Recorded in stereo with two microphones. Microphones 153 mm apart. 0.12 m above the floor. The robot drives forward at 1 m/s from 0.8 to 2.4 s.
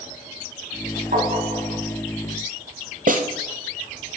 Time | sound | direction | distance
1.1 | tapping | 60° right (ahead or behind) | 3 m
3.1 | a snare drum | 60° right (ahead or behind) | 1.1 m